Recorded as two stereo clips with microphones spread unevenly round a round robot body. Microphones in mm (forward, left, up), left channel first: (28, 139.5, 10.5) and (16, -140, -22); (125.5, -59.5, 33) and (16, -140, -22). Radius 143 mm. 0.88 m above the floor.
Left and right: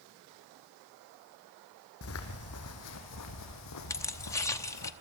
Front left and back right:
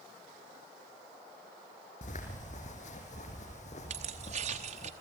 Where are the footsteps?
50° left, 3 m; by 4.9 s 80° left, 3 m.